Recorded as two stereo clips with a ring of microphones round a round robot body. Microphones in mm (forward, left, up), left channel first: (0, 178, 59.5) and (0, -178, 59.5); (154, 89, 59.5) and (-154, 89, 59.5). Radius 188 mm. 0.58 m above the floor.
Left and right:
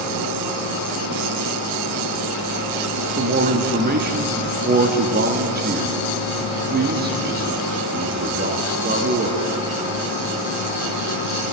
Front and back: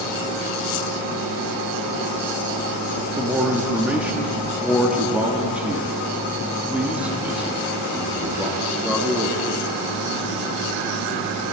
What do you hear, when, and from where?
3.2 s a man speaking: 100° right, 1.2 m